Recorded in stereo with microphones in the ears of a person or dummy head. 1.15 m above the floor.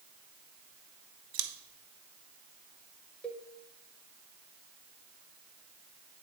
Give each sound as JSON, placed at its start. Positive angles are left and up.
{"t": 1.3, "sound": "scissors", "side_deg": -65, "distance_m": 0.9}
{"t": 3.2, "sound": "a cowbell", "side_deg": 5, "distance_m": 0.8}